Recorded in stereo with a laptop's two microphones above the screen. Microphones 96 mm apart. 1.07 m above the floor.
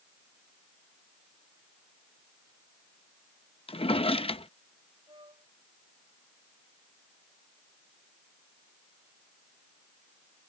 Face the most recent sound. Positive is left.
turn(degrees=-55)  # may be behind; listen again after turning